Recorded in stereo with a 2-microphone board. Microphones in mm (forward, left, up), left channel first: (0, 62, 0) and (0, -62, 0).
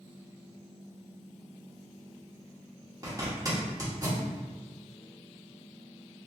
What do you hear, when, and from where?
3.0 s a zipper: 30° right (ahead or behind), 1.1 m